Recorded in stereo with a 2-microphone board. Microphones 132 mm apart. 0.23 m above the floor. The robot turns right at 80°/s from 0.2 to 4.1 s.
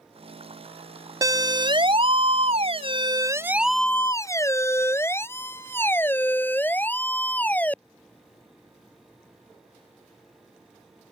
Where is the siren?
25° right (ahead or behind); by 7.8 s 10° left (ahead or behind).